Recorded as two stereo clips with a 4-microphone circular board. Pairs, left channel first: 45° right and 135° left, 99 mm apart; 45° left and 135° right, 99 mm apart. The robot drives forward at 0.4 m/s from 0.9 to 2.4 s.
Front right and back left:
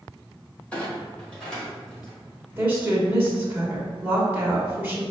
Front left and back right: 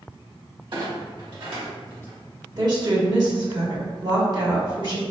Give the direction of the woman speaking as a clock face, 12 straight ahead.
5 o'clock.